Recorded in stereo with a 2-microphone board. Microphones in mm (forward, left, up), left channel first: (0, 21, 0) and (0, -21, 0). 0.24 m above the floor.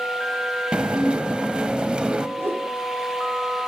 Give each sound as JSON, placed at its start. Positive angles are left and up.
{"t": 0.7, "sound": "dishes clattering", "side_deg": -25, "distance_m": 0.7}
{"t": 2.4, "sound": "a whoosh", "side_deg": -75, "distance_m": 5.0}